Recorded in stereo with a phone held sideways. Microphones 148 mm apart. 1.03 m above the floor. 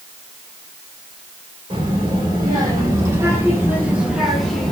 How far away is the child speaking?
About 2.5 m.